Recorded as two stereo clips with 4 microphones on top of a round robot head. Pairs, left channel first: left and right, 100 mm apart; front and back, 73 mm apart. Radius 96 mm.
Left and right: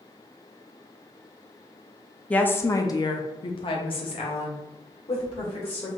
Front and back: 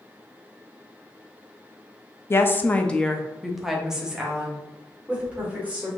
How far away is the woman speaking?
About 0.8 m.